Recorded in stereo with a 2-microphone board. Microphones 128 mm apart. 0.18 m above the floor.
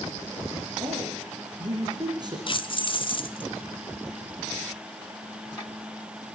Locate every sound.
0.8 s a man speaking: 35° right (ahead or behind), 5.5 m
2.5 s keys jangling: 40° left (ahead or behind), 1.2 m